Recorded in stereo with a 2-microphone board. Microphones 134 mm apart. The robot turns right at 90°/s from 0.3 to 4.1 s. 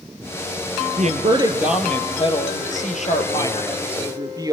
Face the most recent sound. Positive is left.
turn(degrees=-150)